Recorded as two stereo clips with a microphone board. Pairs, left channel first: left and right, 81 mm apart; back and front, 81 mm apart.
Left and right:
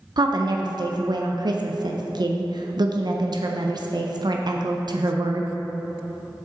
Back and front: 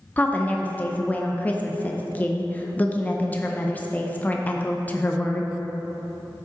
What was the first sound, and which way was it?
A woman speaking, 110° right.